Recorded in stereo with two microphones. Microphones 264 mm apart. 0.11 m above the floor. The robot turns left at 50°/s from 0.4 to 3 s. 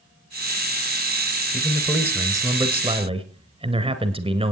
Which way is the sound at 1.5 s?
5° left (ahead or behind).